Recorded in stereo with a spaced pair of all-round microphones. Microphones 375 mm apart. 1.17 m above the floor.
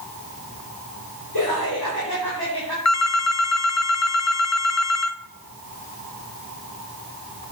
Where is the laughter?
75° left (ahead or behind), 4.5 m; by 2.8 s 85° left, 4 m.